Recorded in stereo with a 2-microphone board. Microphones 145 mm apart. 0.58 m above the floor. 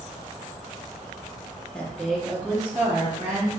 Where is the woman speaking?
10° left (ahead or behind), 0.7 m; by 3.5 s 15° right (ahead or behind), 1.2 m.